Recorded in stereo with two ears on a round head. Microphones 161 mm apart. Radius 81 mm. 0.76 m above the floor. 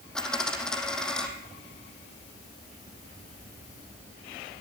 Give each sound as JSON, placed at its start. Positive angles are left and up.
{"t": 0.1, "sound": "a dropped coin", "side_deg": 5, "distance_m": 6.5}